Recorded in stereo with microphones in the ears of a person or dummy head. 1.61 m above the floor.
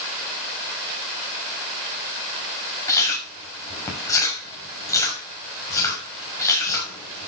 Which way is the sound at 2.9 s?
15° left (ahead or behind).